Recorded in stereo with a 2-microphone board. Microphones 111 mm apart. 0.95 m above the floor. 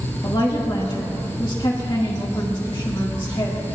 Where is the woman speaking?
45° left (ahead or behind), 1.6 m.